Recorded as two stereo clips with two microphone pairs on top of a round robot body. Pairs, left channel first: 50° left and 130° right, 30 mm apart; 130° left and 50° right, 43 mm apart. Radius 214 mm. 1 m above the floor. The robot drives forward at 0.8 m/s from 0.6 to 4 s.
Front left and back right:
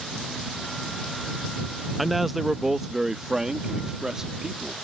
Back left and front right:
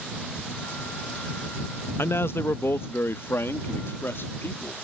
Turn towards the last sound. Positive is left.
turn(degrees=160)